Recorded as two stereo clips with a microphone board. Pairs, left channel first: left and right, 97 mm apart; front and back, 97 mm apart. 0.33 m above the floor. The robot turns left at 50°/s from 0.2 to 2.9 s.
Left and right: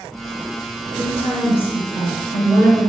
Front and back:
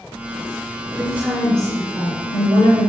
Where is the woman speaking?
115° left, 3.5 m; by 2.9 s 15° left, 3.5 m.